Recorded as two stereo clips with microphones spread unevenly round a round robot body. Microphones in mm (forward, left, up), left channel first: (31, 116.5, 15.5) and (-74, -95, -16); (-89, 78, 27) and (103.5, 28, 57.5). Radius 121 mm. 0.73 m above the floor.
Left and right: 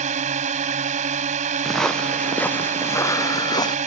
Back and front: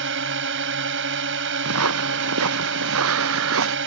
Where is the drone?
55° right.